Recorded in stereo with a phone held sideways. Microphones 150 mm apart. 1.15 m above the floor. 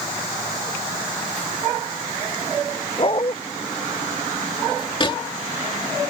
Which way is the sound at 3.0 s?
35° left (ahead or behind).